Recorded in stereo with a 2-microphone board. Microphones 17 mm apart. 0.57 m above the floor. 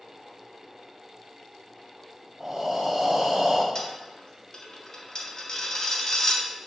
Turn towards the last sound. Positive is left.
turn(degrees=35)  # may be behind; listen again after turning